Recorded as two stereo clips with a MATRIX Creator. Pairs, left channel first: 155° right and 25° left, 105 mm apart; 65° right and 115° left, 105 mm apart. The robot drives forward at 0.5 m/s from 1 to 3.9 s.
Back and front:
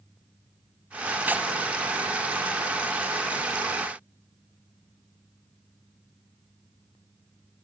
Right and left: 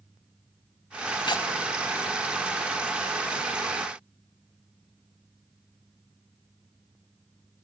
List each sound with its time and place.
1.3 s tearing paper: 45° right, 1.6 m